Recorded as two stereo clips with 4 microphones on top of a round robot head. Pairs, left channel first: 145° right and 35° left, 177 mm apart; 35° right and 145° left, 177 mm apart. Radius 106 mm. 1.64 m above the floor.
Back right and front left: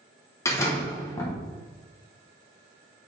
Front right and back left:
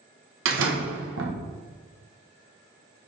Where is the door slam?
145° left, 1.1 m.